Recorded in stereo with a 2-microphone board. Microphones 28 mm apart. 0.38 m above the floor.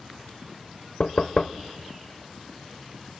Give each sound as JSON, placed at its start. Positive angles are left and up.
{"t": 1.0, "sound": "knocking", "side_deg": 40, "distance_m": 0.9}